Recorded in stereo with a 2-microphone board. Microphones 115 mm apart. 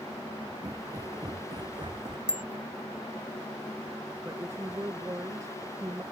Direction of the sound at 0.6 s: 30° right (ahead or behind).